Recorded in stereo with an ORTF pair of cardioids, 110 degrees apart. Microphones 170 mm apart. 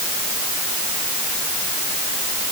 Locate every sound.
Only background noise.